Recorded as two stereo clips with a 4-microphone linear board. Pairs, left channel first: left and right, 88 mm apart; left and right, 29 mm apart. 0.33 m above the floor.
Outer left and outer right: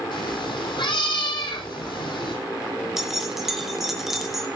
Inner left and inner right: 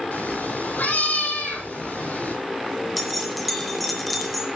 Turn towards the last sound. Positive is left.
turn(degrees=-5)  # may be behind; listen again after turning